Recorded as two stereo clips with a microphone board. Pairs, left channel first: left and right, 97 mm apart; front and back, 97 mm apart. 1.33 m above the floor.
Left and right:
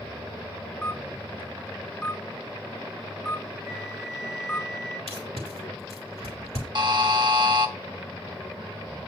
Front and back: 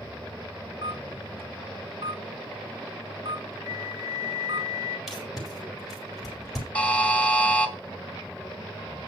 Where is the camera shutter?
170° left, 3 m.